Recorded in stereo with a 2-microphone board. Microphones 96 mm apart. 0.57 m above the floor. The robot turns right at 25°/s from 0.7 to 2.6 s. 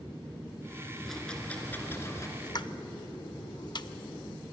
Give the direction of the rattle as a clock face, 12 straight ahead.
12 o'clock.